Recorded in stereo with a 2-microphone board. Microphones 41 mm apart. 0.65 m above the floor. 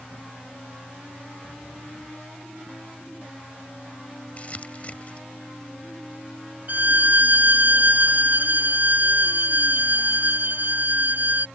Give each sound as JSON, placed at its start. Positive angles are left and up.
{"t": 4.4, "sound": "crumpling", "side_deg": 35}
{"t": 6.7, "sound": "a violin", "side_deg": -50}